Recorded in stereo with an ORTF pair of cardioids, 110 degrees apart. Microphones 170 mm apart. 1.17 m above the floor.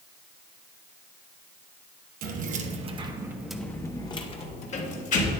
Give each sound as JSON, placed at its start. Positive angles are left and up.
{"t": 2.2, "sound": "keys jangling", "azimuth_deg": -55, "distance_m": 1.0}